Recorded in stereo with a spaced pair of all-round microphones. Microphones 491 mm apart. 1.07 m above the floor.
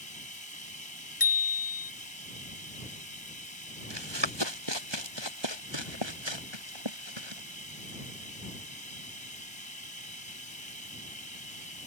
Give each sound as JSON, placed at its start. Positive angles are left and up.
{"t": 0.0, "sound": "running water", "side_deg": 75}
{"t": 1.2, "sound": "a bicycle bell", "side_deg": 45}
{"t": 3.9, "sound": "running footsteps", "side_deg": -55}